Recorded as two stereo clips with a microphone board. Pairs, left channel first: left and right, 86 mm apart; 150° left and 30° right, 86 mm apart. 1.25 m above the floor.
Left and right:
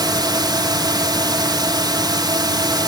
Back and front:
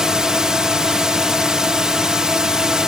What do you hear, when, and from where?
0.0 s a drone: 110° right